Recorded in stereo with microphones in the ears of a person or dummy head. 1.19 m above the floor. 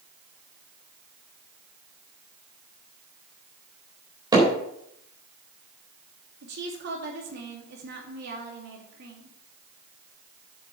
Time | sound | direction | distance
4.3 | hammering | 15° right (ahead or behind) | 4 m
6.4 | a woman speaking | 50° right (ahead or behind) | 2.5 m